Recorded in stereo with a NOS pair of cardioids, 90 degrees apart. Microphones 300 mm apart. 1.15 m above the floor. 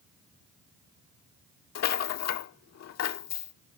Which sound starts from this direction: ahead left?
A rattle, at 1.8 s.